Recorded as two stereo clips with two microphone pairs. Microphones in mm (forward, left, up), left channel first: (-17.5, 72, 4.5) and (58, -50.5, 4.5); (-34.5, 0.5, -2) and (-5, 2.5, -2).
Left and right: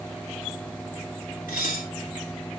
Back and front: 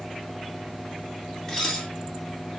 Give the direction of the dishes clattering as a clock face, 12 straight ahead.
8 o'clock.